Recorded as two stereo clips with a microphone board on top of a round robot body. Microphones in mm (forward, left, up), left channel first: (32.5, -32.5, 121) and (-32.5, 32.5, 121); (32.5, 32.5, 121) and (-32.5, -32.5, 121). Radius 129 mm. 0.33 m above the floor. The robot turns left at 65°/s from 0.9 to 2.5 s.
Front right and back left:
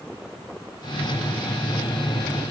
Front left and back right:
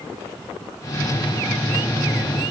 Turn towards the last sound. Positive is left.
No sound to turn to.